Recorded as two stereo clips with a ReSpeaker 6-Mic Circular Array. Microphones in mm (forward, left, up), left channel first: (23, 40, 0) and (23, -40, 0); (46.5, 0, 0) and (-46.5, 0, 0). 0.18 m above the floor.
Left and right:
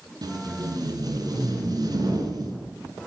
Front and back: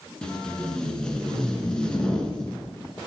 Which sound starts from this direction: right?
Tape being pulled, at 0.2 s.